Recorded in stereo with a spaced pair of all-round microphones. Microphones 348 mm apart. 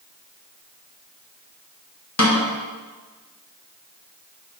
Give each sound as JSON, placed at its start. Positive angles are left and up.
{"t": 2.2, "sound": "a snare drum", "side_deg": 50, "distance_m": 1.3}